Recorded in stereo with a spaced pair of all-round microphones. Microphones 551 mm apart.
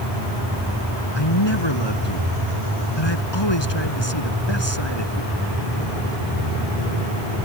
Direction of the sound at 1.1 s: 45° left (ahead or behind).